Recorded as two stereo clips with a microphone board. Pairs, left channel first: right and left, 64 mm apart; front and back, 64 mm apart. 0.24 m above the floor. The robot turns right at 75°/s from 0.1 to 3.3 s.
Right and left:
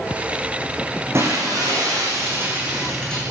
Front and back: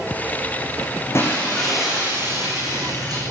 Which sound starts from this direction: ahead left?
Breaking glass, at 1.1 s.